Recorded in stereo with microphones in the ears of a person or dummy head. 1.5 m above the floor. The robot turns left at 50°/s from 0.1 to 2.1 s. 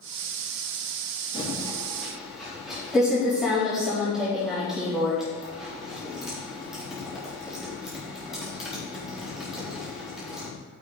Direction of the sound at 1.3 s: 35° left (ahead or behind).